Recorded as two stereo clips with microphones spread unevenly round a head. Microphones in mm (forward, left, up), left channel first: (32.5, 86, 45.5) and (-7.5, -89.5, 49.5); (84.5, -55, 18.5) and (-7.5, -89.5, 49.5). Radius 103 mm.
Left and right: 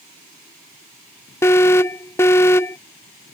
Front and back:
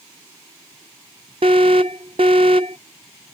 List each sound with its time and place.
1.4 s an alarm: 155° left